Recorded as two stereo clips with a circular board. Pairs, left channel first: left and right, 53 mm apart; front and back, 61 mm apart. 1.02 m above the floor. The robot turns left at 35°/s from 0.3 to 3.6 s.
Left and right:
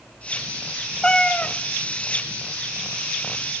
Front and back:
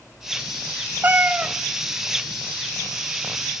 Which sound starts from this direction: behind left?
A cat meowing, at 1.0 s.